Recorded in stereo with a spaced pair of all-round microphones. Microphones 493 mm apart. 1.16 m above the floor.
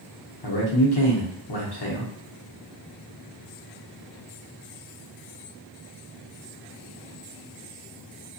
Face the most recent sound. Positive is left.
turn(degrees=50)  # may be behind; listen again after turning